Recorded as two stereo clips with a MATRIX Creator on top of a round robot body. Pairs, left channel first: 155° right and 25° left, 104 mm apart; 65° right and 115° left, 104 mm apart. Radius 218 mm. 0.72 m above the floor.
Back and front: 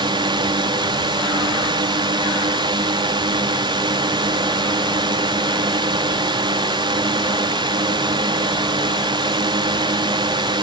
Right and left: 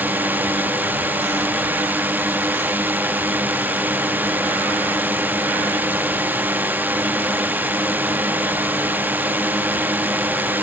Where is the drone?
45° left.